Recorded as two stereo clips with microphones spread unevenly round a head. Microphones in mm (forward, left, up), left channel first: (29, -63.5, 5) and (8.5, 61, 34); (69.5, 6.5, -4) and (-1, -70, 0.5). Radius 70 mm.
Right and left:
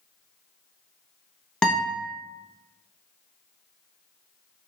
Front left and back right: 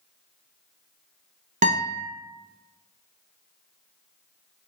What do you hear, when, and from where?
1.6 s a guitar: 170° right, 0.7 m